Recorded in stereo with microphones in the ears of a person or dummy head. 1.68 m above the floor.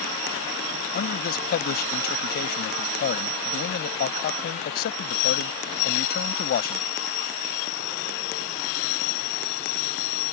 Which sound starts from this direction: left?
A man speaking, at 0.9 s.